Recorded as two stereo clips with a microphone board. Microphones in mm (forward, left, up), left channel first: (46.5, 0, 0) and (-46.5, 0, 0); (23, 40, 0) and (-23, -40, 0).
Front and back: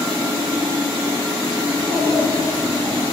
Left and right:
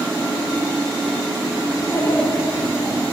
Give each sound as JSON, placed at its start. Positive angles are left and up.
{"t": 1.7, "sound": "a child speaking", "azimuth_deg": 115, "distance_m": 1.3}